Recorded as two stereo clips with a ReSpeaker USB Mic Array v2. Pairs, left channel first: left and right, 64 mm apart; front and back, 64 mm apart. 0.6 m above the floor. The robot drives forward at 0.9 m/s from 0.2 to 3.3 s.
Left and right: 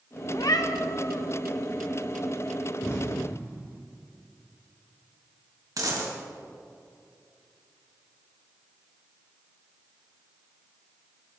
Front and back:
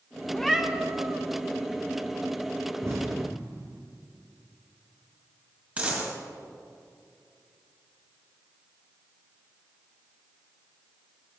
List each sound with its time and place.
0.3 s a cat meowing: 75° left, 0.6 m; by 1.2 s 135° left, 0.9 m
2.8 s an explosion: 135° left, 1.9 m; by 3.8 s 145° left, 2 m
5.8 s a dropped coin: 115° right, 2 m